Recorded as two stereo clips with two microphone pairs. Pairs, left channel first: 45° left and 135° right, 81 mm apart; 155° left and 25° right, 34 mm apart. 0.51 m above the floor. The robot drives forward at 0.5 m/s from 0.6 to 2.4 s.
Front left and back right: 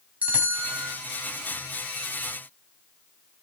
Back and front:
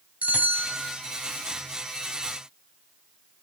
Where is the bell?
65° right, 2.5 m.